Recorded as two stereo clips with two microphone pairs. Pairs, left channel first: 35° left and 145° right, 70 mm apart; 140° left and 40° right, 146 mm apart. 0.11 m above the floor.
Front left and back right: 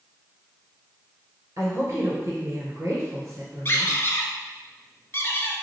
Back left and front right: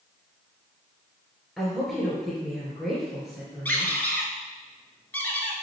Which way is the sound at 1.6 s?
130° right.